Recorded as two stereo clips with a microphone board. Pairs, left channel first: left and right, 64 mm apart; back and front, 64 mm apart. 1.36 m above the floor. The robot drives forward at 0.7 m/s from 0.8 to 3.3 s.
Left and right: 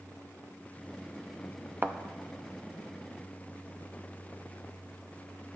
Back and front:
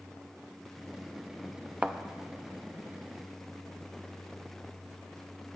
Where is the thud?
55° right, 0.8 m; by 2.0 s 70° right, 0.7 m.